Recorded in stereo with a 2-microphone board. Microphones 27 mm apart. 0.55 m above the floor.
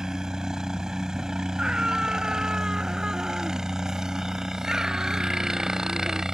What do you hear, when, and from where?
0.0 s a helicopter: 20° right (ahead or behind)
1.6 s a scream: 25° right (ahead or behind)